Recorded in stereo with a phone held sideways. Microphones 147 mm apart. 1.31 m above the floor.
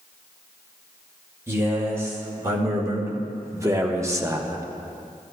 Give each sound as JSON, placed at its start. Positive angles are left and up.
{"t": 1.5, "sound": "a man speaking", "side_deg": -20, "distance_m": 2.5}